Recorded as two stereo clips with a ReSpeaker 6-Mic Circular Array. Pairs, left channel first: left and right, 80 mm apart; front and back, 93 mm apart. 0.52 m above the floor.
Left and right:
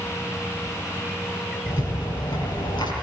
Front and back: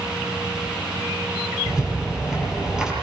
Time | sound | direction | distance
1.7 | a rattle | 95° left | 8 m